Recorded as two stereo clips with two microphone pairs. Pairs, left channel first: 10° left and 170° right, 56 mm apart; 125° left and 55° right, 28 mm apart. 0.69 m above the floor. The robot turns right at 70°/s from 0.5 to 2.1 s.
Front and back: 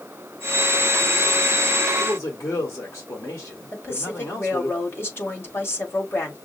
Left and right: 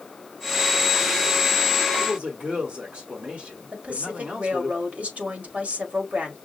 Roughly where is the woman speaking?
Ahead right.